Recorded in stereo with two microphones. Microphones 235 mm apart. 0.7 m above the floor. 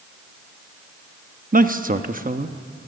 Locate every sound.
1.5 s a man speaking: 35° right (ahead or behind), 0.9 m